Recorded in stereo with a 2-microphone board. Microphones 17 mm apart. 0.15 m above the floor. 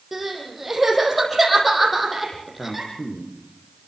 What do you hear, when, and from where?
0.1 s crying: 5° right (ahead or behind), 6.5 m
2.6 s a man speaking: 70° left (ahead or behind), 6 m